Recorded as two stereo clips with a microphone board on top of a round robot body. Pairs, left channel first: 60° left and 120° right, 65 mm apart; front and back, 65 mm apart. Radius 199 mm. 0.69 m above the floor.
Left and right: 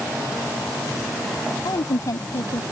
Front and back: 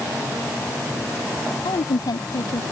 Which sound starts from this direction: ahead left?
A woman speaking, at 1.6 s.